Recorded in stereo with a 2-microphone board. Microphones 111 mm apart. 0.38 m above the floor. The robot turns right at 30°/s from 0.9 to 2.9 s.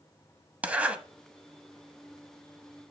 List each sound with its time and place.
0.6 s a zipper: 15° right (ahead or behind), 0.6 m; by 1.0 s 10° right (ahead or behind), 0.6 m